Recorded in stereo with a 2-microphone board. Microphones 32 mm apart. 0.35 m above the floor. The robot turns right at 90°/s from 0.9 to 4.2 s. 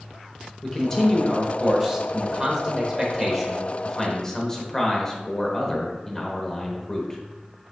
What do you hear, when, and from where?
0.6 s a man speaking: 15° left (ahead or behind), 0.8 m; by 7.2 s 20° left (ahead or behind), 0.8 m